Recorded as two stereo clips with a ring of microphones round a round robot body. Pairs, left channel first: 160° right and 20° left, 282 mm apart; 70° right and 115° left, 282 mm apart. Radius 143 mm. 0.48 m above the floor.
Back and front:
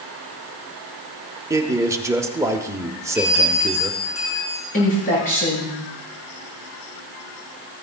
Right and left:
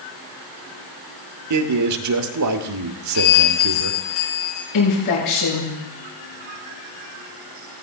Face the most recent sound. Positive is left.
turn(degrees=-90)